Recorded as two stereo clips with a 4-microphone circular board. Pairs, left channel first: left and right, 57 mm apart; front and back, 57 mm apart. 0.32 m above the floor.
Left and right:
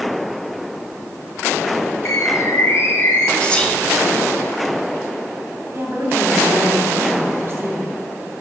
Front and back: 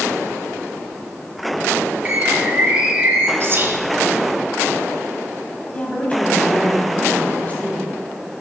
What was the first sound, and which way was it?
A bird, 110° left.